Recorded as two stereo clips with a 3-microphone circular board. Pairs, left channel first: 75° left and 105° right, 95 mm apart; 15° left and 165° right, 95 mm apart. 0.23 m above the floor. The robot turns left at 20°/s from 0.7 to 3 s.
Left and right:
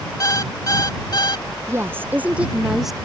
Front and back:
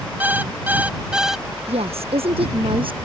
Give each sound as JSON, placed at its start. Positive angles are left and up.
{"t": 0.2, "sound": "an alarm clock", "azimuth_deg": 125}
{"t": 1.7, "sound": "a woman speaking", "azimuth_deg": -170}